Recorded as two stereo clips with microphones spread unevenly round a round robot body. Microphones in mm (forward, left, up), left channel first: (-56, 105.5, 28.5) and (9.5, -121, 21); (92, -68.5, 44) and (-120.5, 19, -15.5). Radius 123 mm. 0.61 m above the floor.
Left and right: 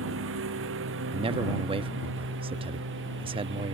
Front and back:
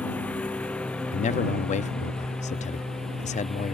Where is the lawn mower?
105° right; by 3.8 s 110° right.